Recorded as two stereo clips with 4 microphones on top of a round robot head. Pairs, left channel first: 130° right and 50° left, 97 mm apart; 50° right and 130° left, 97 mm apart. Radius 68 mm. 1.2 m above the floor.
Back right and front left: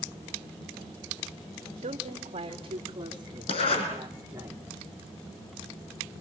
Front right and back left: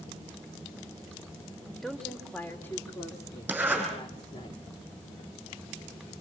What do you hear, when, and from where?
1.8 s a woman speaking: 35° left, 2.5 m; by 4.5 s 20° right, 3 m
3.5 s a zipper: 155° right, 8.5 m